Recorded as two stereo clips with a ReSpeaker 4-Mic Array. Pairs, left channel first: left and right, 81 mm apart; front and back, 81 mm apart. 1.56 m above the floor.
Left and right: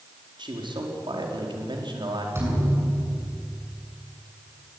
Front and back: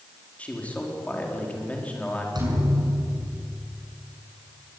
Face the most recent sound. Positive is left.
turn(degrees=-150)